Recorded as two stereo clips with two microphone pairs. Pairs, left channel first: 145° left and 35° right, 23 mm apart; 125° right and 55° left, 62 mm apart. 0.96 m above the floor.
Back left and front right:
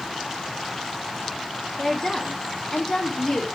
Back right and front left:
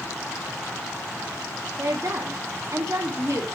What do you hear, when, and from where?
1.8 s a woman speaking: 85° left, 2 m